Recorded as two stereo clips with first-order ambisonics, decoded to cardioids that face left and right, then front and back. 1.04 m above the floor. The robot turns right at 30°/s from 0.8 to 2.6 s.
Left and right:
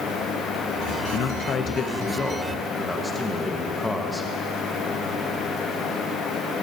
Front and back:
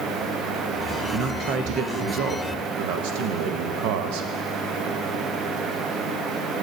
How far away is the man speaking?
About 0.8 m.